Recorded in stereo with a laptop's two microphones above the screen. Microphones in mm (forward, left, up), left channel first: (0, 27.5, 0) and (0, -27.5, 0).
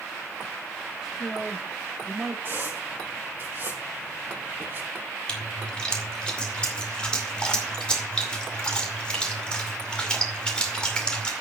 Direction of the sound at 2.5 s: 40° right (ahead or behind).